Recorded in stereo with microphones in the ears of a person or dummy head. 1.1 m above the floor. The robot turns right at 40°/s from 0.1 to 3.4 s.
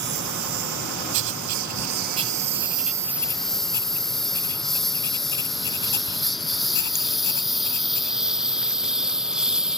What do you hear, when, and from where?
0.0 s a lawn mower: 50° right (ahead or behind); by 9.8 s 5° right (ahead or behind)
1.1 s writing: 65° right (ahead or behind); by 8.2 s 15° left (ahead or behind)